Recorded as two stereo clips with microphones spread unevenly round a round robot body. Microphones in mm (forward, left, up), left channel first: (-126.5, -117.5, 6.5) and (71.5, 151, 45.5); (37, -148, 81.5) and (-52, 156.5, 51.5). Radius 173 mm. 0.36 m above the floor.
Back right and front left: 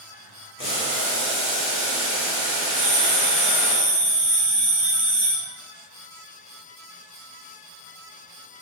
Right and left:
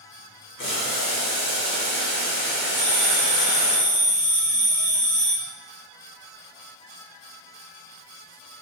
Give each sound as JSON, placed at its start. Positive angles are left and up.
{"t": 0.6, "sound": "boiling", "azimuth_deg": -85, "distance_m": 1.3}
{"t": 2.8, "sound": "a bell", "azimuth_deg": 30, "distance_m": 1.4}